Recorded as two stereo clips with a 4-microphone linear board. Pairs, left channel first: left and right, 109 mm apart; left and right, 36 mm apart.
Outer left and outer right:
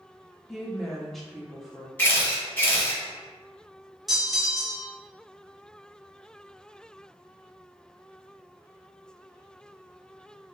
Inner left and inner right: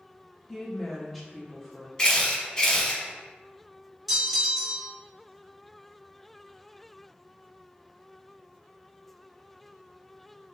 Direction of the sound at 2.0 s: 20° left (ahead or behind).